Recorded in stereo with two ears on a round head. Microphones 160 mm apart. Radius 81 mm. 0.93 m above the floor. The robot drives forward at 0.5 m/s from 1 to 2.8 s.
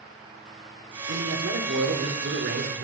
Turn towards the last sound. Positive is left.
turn(degrees=-70)  # may be behind; listen again after turning